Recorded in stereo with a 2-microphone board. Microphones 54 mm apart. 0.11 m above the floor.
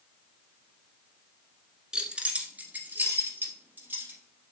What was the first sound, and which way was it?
Keys jangling, 15° right (ahead or behind).